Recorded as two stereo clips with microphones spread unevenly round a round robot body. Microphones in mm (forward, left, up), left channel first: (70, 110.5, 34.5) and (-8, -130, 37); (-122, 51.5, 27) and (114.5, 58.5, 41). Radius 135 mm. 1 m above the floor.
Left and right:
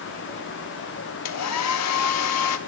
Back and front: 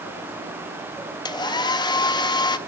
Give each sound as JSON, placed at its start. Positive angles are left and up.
{"t": 1.2, "sound": "a hair dryer", "azimuth_deg": 110, "distance_m": 1.1}